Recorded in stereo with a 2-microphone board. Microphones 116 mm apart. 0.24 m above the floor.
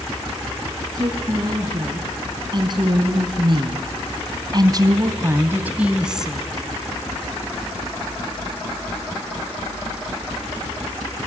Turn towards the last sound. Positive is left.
turn(degrees=0)  # may be behind; listen again after turning